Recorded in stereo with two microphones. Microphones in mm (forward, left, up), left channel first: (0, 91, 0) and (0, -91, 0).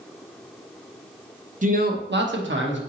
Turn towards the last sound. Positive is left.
turn(degrees=-80)